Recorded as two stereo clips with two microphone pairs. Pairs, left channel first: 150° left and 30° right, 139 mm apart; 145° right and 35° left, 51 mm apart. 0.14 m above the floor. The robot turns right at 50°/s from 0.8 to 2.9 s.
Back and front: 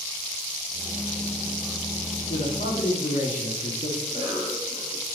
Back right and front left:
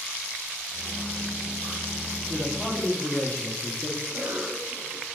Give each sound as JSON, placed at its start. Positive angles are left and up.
{"t": 2.3, "sound": "a man speaking", "azimuth_deg": 140, "distance_m": 3.0}
{"t": 4.0, "sound": "a cough", "azimuth_deg": 25, "distance_m": 2.5}